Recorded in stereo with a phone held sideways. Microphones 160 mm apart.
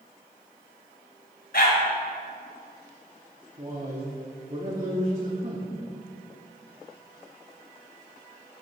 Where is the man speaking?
40° right (ahead or behind), 1.4 m.